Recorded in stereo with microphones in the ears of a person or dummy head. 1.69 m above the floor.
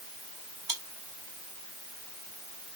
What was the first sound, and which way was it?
Chewing, 30° right (ahead or behind).